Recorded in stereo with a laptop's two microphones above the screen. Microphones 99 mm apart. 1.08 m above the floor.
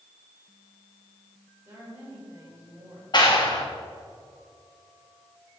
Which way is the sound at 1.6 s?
25° right (ahead or behind).